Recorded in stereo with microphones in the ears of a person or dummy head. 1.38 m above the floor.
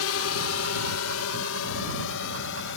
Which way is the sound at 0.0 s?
70° left (ahead or behind).